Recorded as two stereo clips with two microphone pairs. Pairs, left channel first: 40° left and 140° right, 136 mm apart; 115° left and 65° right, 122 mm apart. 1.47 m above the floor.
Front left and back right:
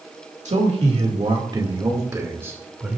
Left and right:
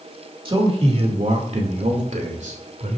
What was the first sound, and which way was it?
A man speaking, 105° right.